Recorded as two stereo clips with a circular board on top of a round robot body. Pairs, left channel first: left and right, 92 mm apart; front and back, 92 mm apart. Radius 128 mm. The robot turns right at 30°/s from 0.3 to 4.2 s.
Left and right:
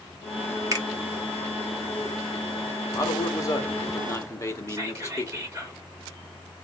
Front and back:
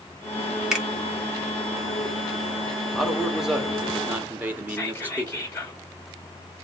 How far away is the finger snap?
About 1.4 m.